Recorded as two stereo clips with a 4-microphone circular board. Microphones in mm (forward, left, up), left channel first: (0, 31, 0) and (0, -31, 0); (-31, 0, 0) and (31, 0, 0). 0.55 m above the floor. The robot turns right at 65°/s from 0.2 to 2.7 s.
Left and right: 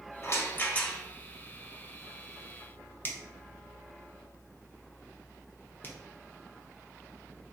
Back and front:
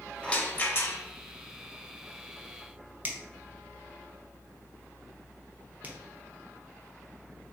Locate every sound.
0.2 s a rattle: 110° left, 0.5 m; by 1.0 s 160° left, 0.5 m
3.0 s a finger snap: 50° left, 0.5 m